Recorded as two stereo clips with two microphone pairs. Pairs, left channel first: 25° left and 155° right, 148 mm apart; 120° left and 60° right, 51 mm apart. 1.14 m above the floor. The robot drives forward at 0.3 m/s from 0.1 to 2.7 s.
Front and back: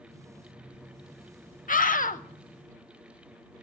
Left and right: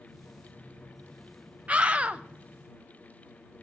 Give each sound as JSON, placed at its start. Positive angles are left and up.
{"t": 1.7, "sound": "a scream", "azimuth_deg": 0, "distance_m": 0.9}